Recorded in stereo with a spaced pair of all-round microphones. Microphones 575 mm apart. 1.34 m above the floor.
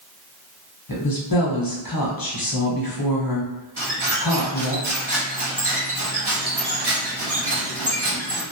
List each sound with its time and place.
0.9 s a woman speaking: 40° left (ahead or behind), 0.8 m
3.8 s a squeak: 45° right (ahead or behind), 0.8 m